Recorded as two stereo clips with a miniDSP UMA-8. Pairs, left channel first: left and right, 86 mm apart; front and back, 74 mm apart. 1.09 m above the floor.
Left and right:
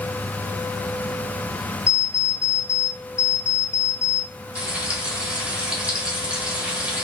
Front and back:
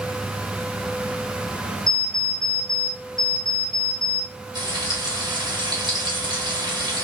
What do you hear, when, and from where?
1.9 s an alarm clock: 85° right, 2 m
4.5 s frying: 170° right, 1.8 m